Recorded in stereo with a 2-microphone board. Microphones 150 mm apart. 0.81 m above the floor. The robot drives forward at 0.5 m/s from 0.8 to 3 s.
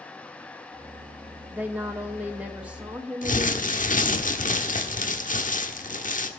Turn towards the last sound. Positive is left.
turn(degrees=60)  # may be behind; listen again after turning